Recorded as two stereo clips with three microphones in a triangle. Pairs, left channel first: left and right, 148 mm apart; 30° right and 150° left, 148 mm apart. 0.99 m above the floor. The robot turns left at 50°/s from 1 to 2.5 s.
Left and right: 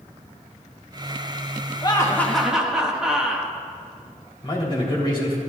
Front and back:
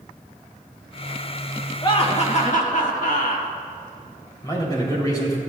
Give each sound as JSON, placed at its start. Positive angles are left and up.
{"t": 1.8, "sound": "laughter", "azimuth_deg": 30, "distance_m": 1.4}
{"t": 4.4, "sound": "a man speaking", "azimuth_deg": 35, "distance_m": 3.0}